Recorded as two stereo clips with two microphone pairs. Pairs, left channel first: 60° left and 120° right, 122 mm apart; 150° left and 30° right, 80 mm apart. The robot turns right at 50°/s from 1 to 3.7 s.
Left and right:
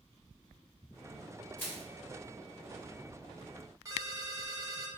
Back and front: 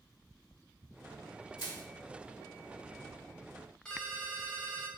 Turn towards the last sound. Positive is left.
turn(degrees=-145)